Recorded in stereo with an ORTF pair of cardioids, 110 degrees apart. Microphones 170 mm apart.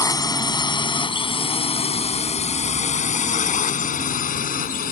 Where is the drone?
20° left; by 4.9 s 55° left.